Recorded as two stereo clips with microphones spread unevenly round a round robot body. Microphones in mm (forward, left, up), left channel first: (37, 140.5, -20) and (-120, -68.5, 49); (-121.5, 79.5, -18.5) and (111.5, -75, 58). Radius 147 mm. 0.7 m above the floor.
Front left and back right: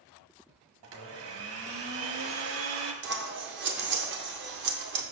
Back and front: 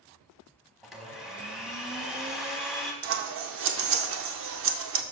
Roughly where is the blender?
Behind right.